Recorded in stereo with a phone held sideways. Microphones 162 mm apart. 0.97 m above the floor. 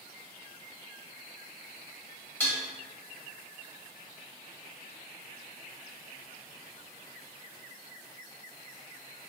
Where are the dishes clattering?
10° left (ahead or behind), 1.2 m.